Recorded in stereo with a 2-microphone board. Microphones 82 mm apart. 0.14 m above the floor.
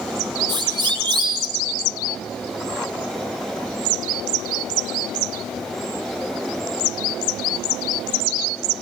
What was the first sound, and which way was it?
A siren, 75° right (ahead or behind).